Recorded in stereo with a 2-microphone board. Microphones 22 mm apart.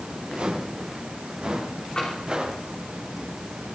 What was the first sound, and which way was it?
Footsteps, 50° right (ahead or behind).